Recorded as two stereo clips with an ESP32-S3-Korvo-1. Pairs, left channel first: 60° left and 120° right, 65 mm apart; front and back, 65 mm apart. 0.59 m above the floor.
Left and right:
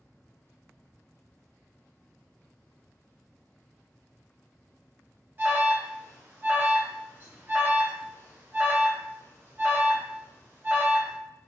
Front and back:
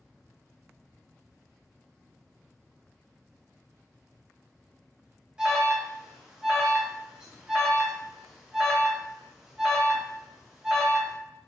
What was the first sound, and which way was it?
An alarm, 110° right.